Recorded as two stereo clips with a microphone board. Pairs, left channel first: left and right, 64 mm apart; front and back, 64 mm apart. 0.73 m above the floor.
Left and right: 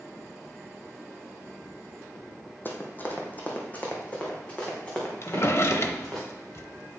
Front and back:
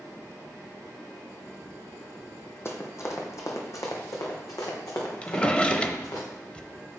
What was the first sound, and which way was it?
Running footsteps, 40° left.